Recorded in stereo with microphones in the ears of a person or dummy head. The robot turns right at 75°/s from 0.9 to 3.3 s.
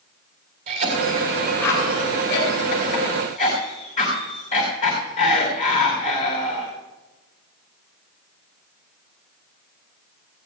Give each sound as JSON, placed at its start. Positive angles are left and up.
{"t": 0.7, "sound": "a cough", "side_deg": -45, "distance_m": 3.5}